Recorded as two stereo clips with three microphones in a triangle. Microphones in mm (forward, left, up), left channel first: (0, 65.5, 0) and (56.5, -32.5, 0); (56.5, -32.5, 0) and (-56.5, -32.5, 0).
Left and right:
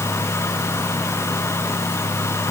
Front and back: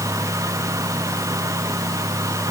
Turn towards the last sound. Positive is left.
No sound to turn to.